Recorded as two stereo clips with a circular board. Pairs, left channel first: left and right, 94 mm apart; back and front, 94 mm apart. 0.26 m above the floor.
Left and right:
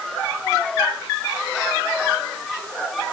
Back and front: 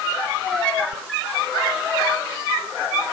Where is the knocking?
No knocking in this recording.